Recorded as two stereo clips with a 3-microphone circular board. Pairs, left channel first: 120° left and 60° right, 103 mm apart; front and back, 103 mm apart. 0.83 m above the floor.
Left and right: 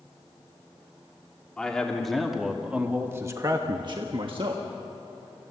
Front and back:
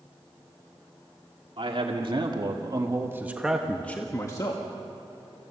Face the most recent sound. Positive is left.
turn(degrees=-40)